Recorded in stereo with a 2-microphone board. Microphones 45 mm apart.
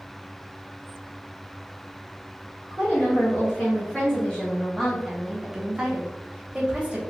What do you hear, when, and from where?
2.7 s a woman speaking: 25° left (ahead or behind), 1.8 m; by 7.0 s 25° right (ahead or behind), 1.2 m